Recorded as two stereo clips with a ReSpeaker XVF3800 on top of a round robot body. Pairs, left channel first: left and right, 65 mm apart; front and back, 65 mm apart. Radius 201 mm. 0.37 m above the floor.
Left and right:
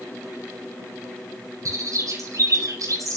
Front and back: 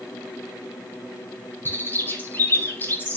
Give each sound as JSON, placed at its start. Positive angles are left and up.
{"t": 1.6, "sound": "a bird", "azimuth_deg": -55, "distance_m": 8.0}